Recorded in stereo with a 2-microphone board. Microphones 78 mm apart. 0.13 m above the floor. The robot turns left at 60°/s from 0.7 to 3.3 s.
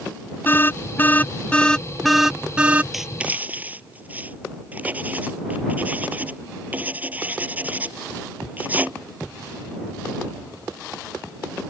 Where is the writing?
Centre (ahead or behind); by 8.9 s 20° right (ahead or behind).